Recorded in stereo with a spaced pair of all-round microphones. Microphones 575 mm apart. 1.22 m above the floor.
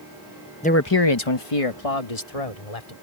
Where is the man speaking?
10° left (ahead or behind); by 2.9 s 85° left.